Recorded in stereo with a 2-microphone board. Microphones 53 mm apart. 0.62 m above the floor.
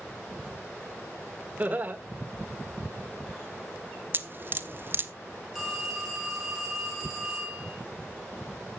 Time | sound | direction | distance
1.6 | laughter | 30° right (ahead or behind) | 1.5 m
4.1 | dripping | 40° right (ahead or behind) | 0.8 m
5.5 | a phone ringing | 5° right (ahead or behind) | 5.5 m